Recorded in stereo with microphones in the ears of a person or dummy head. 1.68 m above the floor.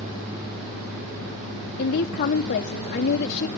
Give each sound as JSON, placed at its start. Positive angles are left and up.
{"t": 1.8, "sound": "a woman speaking", "side_deg": 40, "distance_m": 0.8}